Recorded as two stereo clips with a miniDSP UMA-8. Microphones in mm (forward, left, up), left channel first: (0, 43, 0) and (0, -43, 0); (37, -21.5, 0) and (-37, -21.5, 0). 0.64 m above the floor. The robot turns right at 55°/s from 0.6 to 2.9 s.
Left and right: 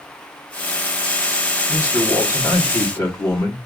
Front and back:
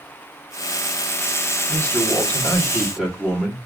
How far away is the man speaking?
About 1.4 m.